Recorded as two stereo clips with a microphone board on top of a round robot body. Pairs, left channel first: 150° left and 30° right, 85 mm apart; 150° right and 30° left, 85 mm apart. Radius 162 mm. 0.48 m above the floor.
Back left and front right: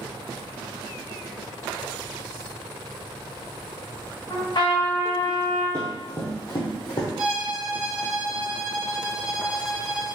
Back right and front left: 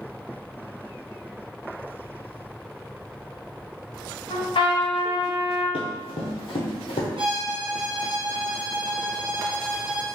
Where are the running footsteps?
145° right, 1.0 m; by 7.1 s 170° right, 1.4 m.